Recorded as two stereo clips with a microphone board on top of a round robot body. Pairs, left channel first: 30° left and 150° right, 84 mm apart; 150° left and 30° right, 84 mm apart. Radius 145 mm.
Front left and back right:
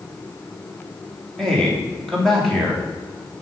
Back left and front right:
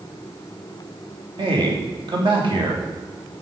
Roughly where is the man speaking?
Ahead right.